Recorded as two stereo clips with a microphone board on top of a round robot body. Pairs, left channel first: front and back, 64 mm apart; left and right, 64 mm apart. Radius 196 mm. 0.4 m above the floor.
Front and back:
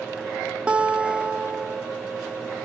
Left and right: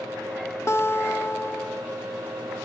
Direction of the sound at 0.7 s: 115° left.